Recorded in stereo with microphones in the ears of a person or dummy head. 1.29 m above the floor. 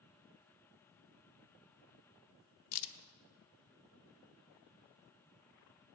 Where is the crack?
75° left (ahead or behind), 0.8 m.